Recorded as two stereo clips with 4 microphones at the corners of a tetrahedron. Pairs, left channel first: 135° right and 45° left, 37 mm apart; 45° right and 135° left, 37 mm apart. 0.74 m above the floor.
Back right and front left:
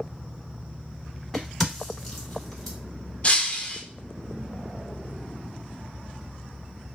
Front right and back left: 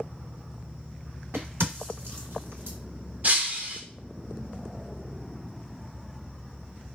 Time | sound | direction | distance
1.3 | a crack | 145° left | 1.5 m
3.2 | breaking glass | 175° left | 0.5 m